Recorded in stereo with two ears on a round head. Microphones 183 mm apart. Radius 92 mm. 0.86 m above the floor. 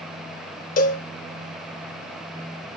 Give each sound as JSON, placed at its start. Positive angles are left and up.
{"t": 0.8, "sound": "a cowbell", "side_deg": 40, "distance_m": 0.7}